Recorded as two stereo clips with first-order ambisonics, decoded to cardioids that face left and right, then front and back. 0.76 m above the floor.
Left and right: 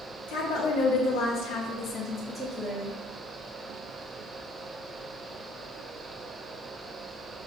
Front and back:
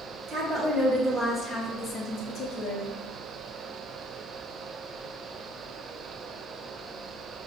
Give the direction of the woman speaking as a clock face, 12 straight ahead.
8 o'clock.